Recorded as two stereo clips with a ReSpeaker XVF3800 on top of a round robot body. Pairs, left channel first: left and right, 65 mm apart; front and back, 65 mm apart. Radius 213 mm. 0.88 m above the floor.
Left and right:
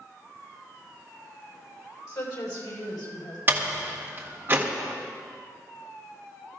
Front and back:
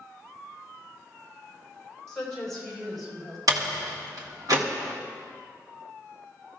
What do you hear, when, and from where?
2.1 s a woman speaking: 80° left, 5 m; by 3.4 s 90° left, 5.5 m
3.5 s a door slam: 150° right, 1.5 m